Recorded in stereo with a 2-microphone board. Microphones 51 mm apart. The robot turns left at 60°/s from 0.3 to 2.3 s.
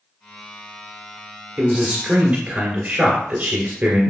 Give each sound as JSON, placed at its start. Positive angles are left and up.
{"t": 1.6, "sound": "a man speaking", "azimuth_deg": -5, "distance_m": 1.9}